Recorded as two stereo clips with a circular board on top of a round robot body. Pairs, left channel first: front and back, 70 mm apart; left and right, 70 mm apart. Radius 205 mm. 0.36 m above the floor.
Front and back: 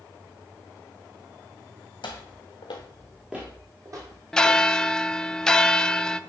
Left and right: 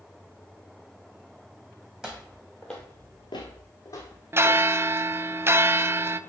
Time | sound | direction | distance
2.0 | footsteps | 10° right | 1.5 m
4.3 | a bell | 75° right | 0.7 m